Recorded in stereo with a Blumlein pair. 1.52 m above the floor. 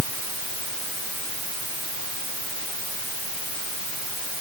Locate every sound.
Only background noise.